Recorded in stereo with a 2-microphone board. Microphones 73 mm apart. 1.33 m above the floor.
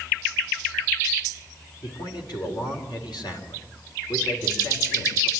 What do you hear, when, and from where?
1.8 s a man speaking: 75° left (ahead or behind), 4.5 m